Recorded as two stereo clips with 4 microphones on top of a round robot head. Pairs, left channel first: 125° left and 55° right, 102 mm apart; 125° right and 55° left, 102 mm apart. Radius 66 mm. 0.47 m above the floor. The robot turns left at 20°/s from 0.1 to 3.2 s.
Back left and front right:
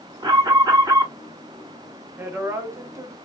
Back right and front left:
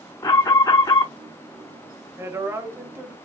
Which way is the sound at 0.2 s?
80° right.